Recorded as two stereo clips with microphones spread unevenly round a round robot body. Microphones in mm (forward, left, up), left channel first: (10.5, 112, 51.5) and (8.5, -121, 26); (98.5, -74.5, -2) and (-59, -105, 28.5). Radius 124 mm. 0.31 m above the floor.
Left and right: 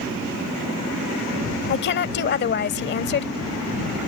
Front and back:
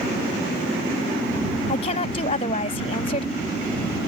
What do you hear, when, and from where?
1.7 s a woman speaking: 50° left